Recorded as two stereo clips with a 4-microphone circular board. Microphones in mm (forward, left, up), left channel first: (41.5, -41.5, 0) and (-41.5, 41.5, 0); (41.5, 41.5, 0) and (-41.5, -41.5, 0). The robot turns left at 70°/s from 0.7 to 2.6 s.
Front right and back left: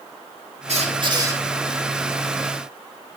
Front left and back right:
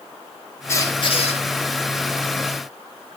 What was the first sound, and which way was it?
A squeak, 115° left.